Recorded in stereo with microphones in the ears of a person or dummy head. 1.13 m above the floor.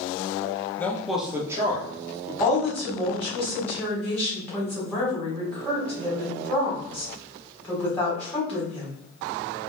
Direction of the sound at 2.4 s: 10° left (ahead or behind).